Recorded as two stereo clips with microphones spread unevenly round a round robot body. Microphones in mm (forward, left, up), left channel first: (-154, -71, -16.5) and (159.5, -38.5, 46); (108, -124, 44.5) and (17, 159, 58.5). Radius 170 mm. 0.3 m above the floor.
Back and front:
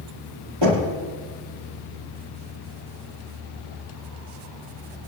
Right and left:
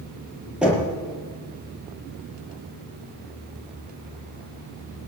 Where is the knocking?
20° left, 6 m.